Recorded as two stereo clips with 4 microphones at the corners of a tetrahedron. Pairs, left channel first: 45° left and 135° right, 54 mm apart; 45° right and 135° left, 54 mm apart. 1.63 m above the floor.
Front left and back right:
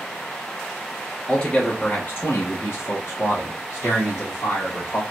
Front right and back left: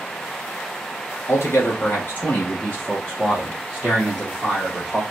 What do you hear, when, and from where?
1.3 s a man speaking: 30° right, 1.0 m; by 5.0 s 70° left, 1.7 m